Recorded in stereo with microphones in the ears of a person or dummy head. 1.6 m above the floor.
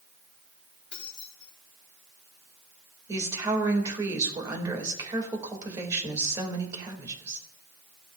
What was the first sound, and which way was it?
Keys jangling, centre (ahead or behind).